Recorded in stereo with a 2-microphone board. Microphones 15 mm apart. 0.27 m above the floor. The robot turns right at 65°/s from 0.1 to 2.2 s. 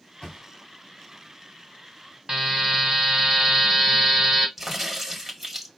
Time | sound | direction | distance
0.2 | a thud | 45° left (ahead or behind) | 2 m
2.3 | a buzzer | 40° right (ahead or behind) | 1.4 m
4.6 | a crack | 20° right (ahead or behind) | 1.5 m